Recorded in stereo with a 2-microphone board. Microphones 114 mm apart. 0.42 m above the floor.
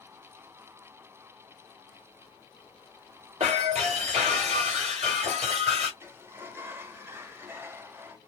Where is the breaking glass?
65° right (ahead or behind), 1.8 m.